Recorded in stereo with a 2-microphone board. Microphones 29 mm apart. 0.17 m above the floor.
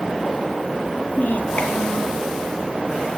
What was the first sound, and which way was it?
A child speaking, 75° left (ahead or behind).